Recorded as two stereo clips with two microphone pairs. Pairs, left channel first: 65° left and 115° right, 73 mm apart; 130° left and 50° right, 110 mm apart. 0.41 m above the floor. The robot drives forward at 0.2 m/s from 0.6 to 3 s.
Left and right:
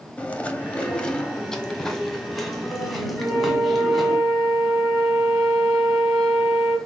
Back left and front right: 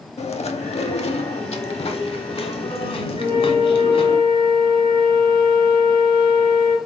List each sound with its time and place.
0.2 s chewing: 140° left, 0.6 m; by 4.2 s 160° left, 1.0 m
3.2 s a flute: 40° right, 3 m